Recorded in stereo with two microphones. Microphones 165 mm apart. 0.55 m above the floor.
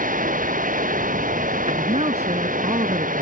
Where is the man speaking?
40° right (ahead or behind).